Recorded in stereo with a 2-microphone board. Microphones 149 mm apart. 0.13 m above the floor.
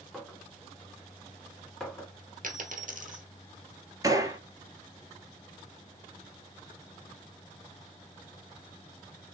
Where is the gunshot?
25° right (ahead or behind), 0.7 m.